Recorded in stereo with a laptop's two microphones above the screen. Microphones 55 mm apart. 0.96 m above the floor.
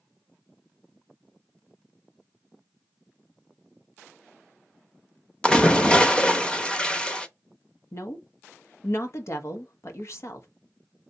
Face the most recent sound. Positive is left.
turn(degrees=60)  # may be behind; listen again after turning